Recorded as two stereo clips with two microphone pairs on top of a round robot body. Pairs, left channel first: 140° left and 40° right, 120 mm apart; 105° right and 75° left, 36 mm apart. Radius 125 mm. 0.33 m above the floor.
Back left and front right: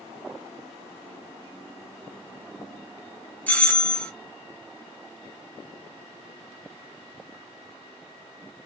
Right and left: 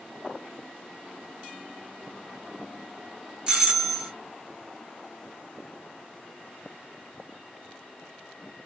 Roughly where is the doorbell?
Left.